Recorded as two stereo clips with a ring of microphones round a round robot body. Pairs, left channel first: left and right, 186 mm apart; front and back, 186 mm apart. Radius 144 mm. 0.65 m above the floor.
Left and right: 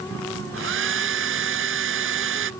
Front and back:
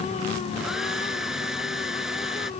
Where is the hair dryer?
90° right.